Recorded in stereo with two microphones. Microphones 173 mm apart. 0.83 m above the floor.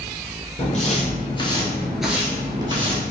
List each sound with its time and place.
0.6 s footsteps: 45° left (ahead or behind), 1.4 m; by 3.0 s 30° right (ahead or behind), 1.4 m